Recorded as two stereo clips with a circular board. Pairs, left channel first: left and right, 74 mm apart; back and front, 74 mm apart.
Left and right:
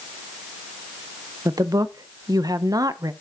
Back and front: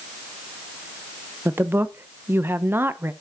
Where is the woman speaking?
60° right, 0.7 m.